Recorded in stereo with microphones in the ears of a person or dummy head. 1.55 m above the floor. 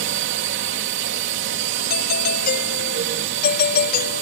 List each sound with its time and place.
0.0 s a drone: 60° right (ahead or behind)
1.9 s a doorbell: 60° left (ahead or behind)